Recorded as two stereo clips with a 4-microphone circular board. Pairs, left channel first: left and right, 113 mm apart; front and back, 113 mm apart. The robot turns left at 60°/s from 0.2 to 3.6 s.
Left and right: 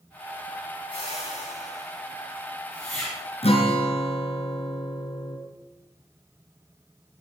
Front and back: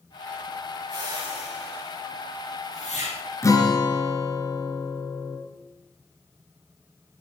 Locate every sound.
0.9 s a whoosh: 135° left, 8.5 m; by 3.2 s 5° right, 8.5 m
3.4 s a guitar: 65° left, 2.5 m; by 5.4 s 55° left, 2.5 m